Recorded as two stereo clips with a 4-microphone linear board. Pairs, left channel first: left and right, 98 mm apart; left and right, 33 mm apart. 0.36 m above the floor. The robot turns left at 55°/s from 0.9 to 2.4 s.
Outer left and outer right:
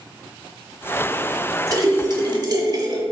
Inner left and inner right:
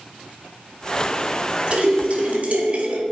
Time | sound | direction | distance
1.7 | a splash | 55° right | 0.8 m